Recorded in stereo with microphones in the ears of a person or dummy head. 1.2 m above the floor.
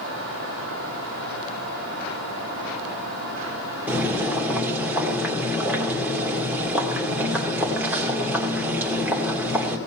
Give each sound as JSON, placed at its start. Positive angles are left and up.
{"t": 3.9, "sound": "boiling", "side_deg": -5, "distance_m": 2.0}